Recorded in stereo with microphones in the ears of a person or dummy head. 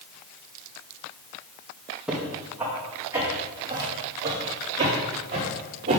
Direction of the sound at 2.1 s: 5° right (ahead or behind).